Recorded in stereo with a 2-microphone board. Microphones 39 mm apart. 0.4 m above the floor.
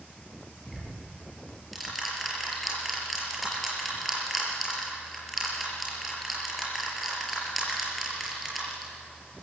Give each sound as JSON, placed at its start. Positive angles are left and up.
{"t": 0.7, "sound": "ticking", "side_deg": 0, "distance_m": 5.0}